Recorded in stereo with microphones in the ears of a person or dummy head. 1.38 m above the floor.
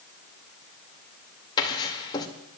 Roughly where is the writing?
Left.